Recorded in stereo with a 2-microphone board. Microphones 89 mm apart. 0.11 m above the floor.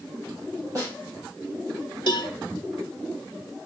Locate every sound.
0.8 s a snare drum: 35° right (ahead or behind), 4.5 m
2.1 s a cowbell: 60° left (ahead or behind), 0.8 m